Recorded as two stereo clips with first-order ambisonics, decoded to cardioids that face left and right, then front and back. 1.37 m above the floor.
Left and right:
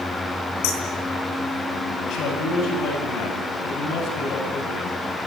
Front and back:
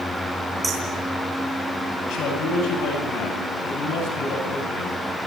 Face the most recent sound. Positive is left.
turn(degrees=45)